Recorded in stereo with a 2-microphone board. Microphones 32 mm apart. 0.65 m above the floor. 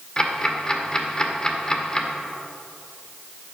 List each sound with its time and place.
0.2 s ticking: 20° left (ahead or behind), 1.7 m